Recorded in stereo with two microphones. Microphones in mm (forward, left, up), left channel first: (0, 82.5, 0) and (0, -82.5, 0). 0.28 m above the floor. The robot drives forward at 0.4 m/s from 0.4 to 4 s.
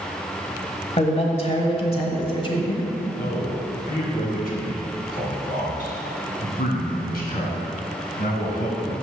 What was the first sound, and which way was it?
A man speaking, 40° left (ahead or behind).